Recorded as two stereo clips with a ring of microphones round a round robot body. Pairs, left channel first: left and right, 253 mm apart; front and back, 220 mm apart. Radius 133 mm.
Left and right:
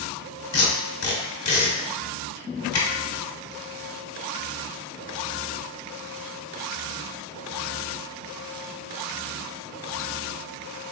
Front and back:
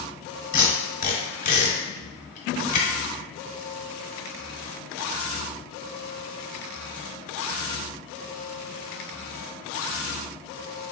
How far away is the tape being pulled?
About 0.9 m.